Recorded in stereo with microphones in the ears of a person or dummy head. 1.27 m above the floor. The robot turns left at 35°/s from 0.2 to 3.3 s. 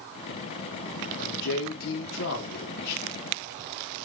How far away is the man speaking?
About 0.8 m.